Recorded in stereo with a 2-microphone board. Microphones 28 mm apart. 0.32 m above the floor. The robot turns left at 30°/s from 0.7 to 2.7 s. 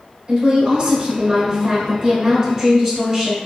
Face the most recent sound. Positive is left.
turn(degrees=-20)  # may be behind; listen again after turning